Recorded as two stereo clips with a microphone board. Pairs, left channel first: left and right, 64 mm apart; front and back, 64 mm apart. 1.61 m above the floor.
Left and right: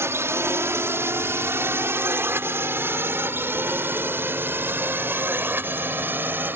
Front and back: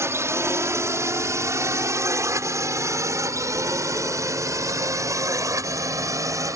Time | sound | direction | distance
0.0 | a drone | 140° right | ?